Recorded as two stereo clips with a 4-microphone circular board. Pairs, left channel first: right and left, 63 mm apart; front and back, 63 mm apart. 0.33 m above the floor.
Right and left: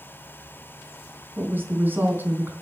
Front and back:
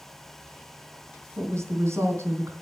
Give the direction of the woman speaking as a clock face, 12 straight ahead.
7 o'clock.